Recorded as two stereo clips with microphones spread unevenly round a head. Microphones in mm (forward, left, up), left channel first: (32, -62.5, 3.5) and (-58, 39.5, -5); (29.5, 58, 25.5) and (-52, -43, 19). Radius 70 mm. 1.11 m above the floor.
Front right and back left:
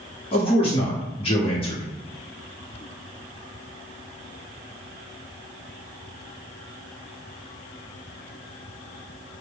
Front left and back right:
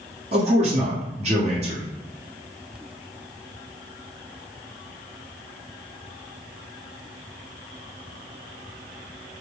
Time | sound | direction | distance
0.3 | a man speaking | 95° right | 1.2 m